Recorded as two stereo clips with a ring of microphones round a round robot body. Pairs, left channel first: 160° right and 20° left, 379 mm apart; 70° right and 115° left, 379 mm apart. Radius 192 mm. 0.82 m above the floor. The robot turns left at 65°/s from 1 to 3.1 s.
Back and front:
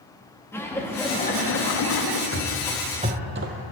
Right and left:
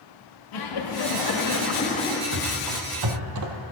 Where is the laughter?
75° right, 1.5 m; by 2.2 s 155° right, 1.5 m.